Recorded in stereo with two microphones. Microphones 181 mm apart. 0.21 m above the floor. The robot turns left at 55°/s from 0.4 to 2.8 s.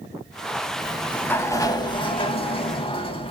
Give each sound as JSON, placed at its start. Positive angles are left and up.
{"t": 0.8, "sound": "a sliding door", "side_deg": 0, "distance_m": 0.6}